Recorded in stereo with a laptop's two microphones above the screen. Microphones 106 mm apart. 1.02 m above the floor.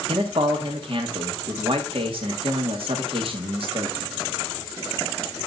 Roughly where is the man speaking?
Right.